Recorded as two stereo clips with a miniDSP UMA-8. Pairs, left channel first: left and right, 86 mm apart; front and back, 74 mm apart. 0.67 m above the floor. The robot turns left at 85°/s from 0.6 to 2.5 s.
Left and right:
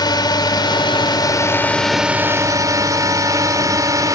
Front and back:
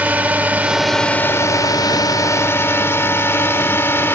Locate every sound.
0.0 s a drone: 115° left; by 4.2 s 50° right